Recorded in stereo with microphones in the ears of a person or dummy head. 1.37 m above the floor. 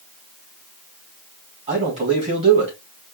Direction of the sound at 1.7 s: 35° right (ahead or behind).